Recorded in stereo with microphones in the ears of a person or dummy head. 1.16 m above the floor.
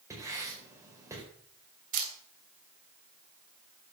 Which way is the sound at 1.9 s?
45° right (ahead or behind).